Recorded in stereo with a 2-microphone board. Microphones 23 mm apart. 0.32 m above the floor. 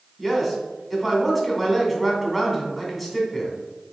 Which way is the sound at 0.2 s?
5° right (ahead or behind).